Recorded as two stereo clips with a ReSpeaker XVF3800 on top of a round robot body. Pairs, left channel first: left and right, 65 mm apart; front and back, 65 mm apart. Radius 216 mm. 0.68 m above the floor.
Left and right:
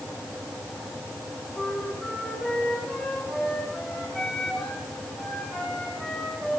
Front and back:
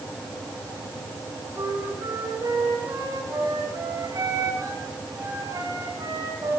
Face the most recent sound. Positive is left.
turn(degrees=180)